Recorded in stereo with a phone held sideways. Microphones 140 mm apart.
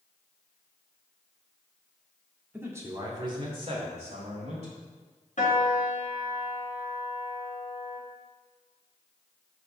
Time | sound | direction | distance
2.5 | a man speaking | 15° right (ahead or behind) | 1.8 m
5.4 | a piano | 60° left (ahead or behind) | 1.8 m